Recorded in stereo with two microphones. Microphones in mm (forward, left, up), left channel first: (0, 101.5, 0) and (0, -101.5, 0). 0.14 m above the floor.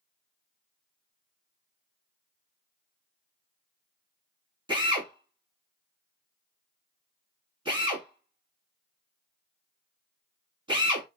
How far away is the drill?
About 0.9 m.